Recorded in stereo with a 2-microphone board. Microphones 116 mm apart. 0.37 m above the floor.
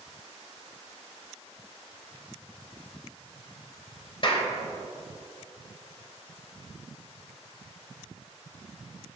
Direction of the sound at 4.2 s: 45° left (ahead or behind).